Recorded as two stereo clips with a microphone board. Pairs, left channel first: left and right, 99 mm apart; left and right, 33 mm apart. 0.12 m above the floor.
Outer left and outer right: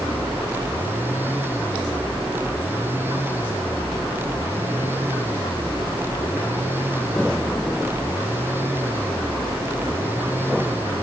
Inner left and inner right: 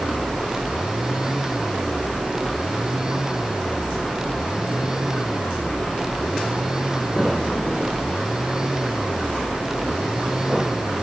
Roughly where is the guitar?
No guitar in this recording.